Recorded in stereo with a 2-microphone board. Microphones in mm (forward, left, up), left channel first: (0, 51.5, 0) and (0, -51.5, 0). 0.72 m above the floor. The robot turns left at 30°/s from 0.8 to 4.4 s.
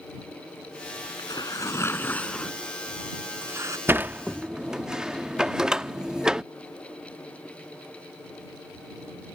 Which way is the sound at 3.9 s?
20° right (ahead or behind).